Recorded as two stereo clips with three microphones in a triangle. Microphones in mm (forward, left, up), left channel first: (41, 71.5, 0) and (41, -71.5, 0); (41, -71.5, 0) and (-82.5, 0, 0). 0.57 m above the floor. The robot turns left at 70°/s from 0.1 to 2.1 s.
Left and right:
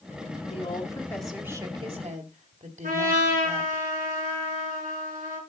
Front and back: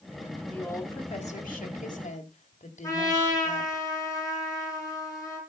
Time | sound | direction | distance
0.5 | a woman speaking | 50° left | 2.5 m
2.8 | a trumpet | 100° right | 6.5 m